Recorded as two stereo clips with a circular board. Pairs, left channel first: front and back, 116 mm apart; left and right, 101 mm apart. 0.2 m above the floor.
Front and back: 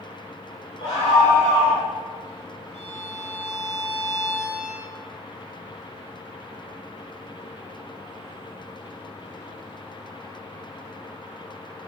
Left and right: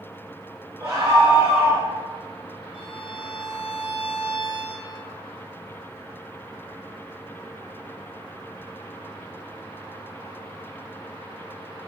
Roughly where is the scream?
Ahead right.